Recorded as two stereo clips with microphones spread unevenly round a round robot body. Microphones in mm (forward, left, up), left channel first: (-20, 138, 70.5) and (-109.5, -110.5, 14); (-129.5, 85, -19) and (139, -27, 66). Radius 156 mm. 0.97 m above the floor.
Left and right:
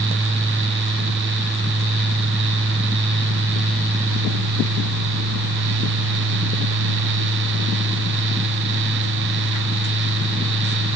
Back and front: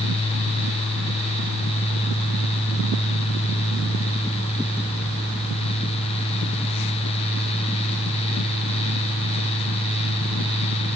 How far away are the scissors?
I don't hear scissors.